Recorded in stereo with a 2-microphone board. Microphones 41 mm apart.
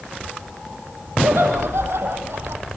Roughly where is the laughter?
Right.